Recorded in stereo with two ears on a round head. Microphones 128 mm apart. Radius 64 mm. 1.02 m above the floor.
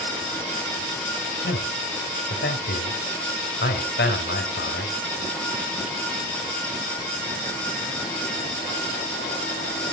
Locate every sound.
1.4 s a man speaking: 80° left, 4 m